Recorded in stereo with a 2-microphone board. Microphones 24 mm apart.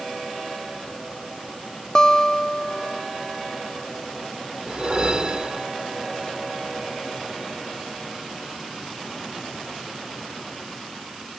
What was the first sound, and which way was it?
A guitar, 25° left (ahead or behind).